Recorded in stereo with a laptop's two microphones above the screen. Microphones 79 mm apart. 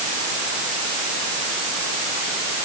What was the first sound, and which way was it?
Only background noise.